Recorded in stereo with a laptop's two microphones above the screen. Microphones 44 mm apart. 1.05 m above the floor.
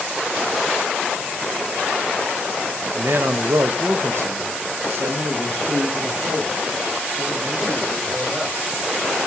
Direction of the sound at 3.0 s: 60° right (ahead or behind).